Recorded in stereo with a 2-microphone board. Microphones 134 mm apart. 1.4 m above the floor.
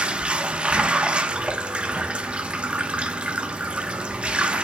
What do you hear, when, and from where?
0.0 s running water: 10° right (ahead or behind), 0.9 m